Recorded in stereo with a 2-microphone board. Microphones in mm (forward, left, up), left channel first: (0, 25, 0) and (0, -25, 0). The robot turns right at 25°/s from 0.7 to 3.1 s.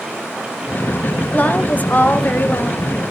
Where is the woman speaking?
50° left, 1.6 m; by 2.9 s 90° left, 1.6 m.